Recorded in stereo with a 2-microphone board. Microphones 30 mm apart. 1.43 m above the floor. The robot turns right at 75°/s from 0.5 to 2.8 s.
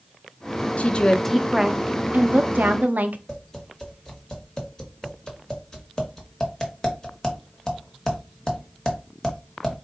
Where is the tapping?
25° left (ahead or behind), 1.2 m.